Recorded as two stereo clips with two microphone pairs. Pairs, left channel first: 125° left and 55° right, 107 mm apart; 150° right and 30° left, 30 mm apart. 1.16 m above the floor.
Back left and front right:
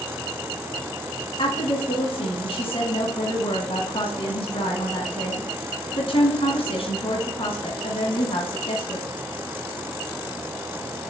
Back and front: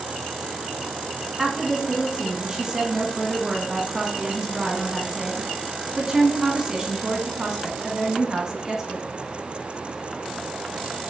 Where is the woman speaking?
95° left, 1.1 m.